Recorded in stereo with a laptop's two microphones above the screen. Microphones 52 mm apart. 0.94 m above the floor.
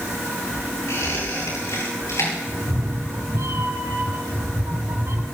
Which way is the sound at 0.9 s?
65° left (ahead or behind).